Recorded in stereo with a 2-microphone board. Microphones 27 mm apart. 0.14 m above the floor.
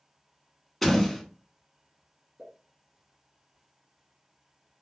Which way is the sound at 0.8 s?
5° left (ahead or behind).